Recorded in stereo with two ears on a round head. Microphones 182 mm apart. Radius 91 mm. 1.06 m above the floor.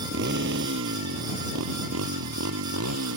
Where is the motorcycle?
55° right (ahead or behind); by 3.2 s 85° right.